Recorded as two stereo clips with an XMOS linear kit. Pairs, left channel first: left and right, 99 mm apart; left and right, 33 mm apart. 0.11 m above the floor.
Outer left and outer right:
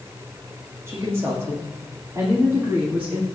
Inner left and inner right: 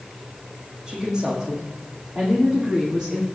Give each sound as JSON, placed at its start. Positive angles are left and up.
{"t": 0.9, "sound": "a woman speaking", "side_deg": -25, "distance_m": 5.5}